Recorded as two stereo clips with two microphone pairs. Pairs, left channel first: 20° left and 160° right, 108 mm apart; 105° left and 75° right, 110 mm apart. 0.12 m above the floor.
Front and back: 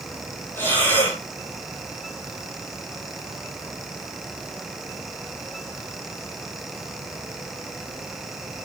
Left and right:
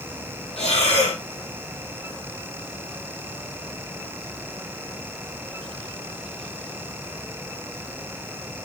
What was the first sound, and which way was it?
Breathing, 90° left.